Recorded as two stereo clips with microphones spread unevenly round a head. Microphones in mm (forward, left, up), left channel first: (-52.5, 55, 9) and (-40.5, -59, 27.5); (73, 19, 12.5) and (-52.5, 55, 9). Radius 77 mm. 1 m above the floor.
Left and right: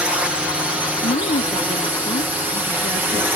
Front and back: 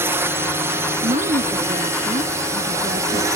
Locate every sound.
0.0 s a drone: 170° right; by 3.4 s 160° right
1.0 s a woman speaking: 120° left